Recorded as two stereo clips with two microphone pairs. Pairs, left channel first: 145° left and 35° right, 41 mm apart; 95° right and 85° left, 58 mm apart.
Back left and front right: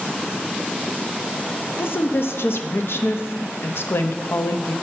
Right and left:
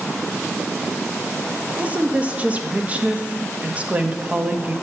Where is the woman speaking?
145° left, 0.6 m.